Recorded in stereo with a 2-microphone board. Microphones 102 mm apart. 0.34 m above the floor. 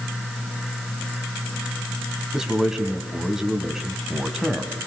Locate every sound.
2.3 s a man speaking: 5° right (ahead or behind), 2.5 m